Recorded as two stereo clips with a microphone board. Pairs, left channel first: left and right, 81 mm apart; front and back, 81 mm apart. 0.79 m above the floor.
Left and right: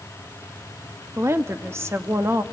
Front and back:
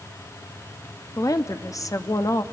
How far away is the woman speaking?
About 0.8 m.